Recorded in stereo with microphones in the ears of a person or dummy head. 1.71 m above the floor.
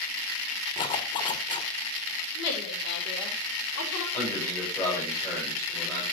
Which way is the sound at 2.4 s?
65° left (ahead or behind).